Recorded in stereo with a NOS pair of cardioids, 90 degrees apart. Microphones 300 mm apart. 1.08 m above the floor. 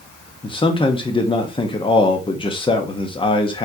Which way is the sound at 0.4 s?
15° left.